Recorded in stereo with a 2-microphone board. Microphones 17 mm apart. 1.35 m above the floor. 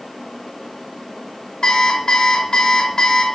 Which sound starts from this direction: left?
An alarm clock, at 1.6 s.